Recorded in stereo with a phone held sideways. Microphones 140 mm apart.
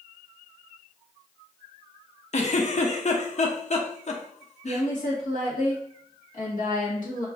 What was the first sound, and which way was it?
A giggle, 55° left (ahead or behind).